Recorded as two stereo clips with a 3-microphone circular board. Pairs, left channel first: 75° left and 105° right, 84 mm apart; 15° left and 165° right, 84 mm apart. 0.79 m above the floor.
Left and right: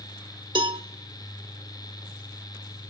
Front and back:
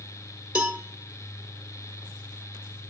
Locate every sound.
0.6 s a cowbell: 90° right, 1.1 m